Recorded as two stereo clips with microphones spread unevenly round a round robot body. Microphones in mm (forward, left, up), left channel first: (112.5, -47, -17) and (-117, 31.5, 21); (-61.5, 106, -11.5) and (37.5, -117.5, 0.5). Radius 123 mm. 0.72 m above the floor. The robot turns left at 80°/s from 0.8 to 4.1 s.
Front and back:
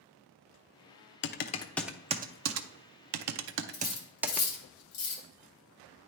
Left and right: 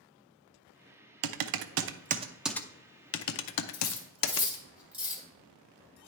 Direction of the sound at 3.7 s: 50° left.